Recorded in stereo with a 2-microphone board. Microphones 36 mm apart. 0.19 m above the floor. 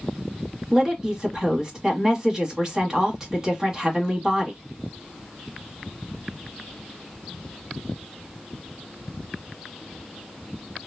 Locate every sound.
0.7 s a woman speaking: 20° right (ahead or behind), 1.1 m